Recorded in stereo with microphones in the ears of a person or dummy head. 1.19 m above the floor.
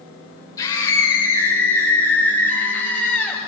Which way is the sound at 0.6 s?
25° left (ahead or behind).